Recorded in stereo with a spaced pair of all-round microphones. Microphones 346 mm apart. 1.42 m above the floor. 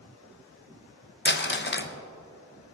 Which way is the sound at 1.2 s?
35° left (ahead or behind).